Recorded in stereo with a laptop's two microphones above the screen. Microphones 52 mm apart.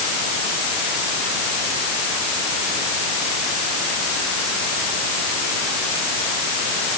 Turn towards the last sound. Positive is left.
No sound to turn to.